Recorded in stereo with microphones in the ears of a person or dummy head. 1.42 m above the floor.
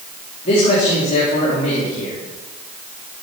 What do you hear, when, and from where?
0.5 s a man speaking: 40° left (ahead or behind), 3.5 m